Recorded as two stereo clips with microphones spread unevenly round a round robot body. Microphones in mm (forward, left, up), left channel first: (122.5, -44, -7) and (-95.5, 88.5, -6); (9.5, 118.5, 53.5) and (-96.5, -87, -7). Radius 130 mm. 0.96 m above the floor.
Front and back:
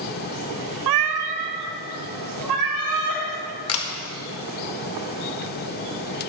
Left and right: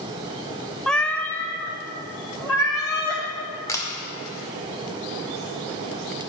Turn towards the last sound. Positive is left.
turn(degrees=-25)